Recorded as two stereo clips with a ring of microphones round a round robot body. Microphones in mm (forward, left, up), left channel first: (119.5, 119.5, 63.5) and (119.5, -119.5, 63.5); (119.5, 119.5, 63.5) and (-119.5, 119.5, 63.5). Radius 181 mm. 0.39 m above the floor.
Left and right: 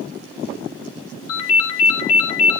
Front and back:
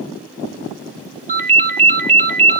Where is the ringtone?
120° left, 2.5 m.